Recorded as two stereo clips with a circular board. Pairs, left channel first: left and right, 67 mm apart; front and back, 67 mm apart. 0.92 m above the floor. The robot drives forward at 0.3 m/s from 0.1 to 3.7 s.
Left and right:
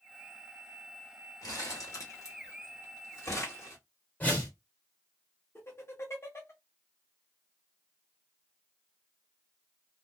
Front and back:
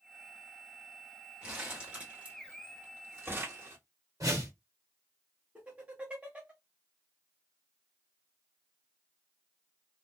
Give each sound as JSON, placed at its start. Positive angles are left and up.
{"t": 1.4, "sound": "crumpling", "azimuth_deg": 105, "distance_m": 1.1}
{"t": 4.2, "sound": "a whoosh", "azimuth_deg": 155, "distance_m": 1.4}
{"t": 5.5, "sound": "laughter", "azimuth_deg": 115, "distance_m": 1.0}